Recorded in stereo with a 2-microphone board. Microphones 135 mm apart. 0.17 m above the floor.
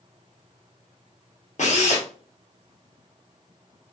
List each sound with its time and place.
1.6 s a drill: 60° left (ahead or behind), 1.4 m